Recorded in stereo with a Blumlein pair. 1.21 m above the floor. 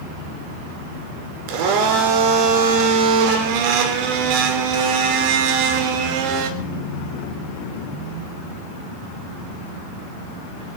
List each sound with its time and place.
1.5 s a blender: 45° right, 2.0 m